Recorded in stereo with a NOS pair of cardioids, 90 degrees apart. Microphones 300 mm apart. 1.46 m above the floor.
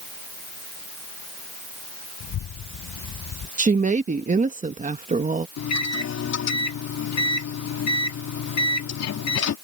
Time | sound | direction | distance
2.2 | a child speaking | 70° left | ?
3.6 | a woman speaking | 25° right | ?
5.6 | a microwave | 60° left | ?